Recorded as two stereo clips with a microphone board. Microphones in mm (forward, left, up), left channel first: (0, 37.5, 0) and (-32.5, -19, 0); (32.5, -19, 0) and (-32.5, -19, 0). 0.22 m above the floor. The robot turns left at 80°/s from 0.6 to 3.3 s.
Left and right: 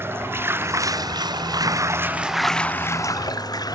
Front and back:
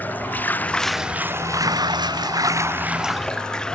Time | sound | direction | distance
0.0 | running water | 65° right | ?